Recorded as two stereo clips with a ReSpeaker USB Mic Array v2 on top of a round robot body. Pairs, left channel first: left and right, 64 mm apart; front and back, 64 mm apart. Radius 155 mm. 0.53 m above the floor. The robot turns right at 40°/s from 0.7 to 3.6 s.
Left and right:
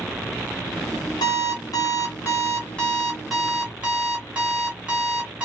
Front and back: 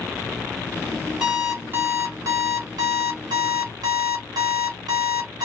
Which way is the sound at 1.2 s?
100° left.